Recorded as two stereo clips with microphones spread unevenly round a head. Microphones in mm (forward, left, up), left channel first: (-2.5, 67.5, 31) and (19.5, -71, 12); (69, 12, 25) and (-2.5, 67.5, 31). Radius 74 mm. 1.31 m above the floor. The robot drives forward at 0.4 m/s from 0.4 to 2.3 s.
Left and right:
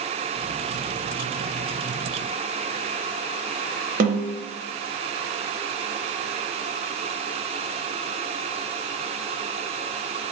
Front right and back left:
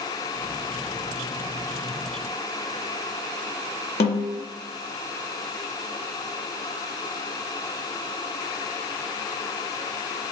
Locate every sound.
4.0 s a snare drum: 45° right, 0.7 m